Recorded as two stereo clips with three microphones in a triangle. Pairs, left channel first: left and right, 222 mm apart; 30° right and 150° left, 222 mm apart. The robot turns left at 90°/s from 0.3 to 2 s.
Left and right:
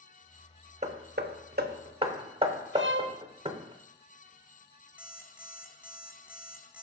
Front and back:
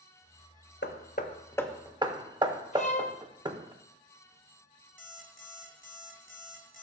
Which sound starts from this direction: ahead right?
Hammering, at 0.8 s.